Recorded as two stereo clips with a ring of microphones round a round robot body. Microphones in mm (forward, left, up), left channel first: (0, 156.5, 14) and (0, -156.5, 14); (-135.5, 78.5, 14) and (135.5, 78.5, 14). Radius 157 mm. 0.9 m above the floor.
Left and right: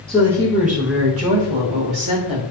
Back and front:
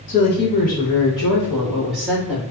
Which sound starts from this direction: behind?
A woman speaking, at 0.1 s.